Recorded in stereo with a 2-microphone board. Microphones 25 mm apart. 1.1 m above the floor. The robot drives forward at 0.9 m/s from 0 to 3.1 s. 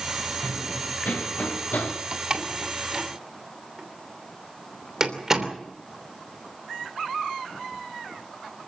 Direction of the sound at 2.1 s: 30° right (ahead or behind).